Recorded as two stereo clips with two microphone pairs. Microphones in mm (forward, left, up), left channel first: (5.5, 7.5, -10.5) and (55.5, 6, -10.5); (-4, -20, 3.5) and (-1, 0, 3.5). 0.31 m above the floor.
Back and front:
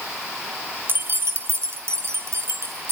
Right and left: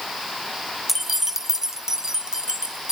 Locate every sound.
0.9 s keys jangling: 5° left, 0.9 m; by 2.9 s 25° left, 3 m